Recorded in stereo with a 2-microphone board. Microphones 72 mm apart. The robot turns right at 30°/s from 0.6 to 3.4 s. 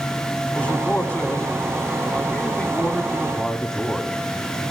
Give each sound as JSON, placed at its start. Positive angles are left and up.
{"t": 0.6, "sound": "a man speaking", "side_deg": 20, "distance_m": 1.1}